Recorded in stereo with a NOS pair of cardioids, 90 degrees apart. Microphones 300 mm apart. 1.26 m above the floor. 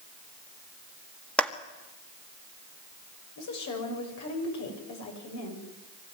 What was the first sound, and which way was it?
A clap, 5° left.